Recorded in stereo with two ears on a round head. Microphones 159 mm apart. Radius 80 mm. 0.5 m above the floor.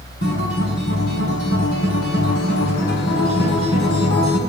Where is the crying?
I don't hear crying.